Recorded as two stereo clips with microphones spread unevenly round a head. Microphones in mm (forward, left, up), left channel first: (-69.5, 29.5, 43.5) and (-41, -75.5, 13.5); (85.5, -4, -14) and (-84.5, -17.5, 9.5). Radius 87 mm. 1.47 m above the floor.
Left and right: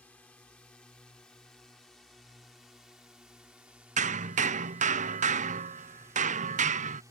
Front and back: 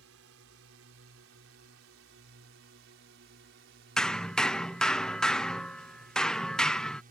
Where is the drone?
Straight behind; by 7.1 s 135° right.